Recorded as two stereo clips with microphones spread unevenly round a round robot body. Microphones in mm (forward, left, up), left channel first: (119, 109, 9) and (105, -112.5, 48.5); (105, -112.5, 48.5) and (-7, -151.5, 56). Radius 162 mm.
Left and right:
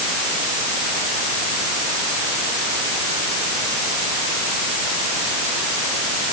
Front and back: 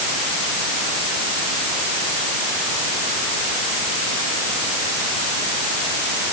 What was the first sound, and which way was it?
Only background noise.